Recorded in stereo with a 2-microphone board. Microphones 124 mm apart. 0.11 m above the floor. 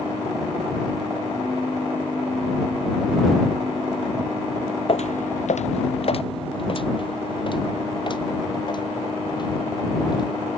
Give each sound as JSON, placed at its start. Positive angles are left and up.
{"t": 4.9, "sound": "footsteps", "side_deg": 50}